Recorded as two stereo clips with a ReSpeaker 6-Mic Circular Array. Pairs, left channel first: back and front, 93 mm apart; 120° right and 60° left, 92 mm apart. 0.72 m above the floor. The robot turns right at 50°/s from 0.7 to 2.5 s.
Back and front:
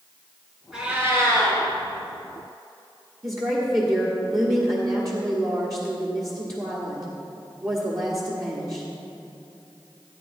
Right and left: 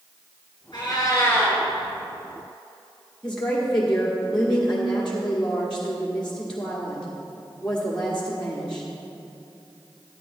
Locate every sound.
0.7 s a cat meowing: 85° right, 3 m; by 1.6 s 40° right, 3 m
3.2 s a woman speaking: 40° right, 1.4 m